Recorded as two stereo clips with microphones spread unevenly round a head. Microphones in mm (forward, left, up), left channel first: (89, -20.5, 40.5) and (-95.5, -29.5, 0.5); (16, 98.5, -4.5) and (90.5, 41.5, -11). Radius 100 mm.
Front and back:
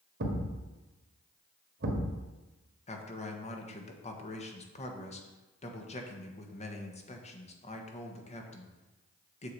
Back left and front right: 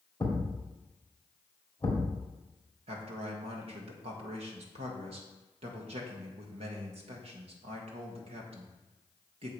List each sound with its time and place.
0.2 s a thud: 145° right, 1.8 m
2.9 s a man speaking: 55° right, 1.4 m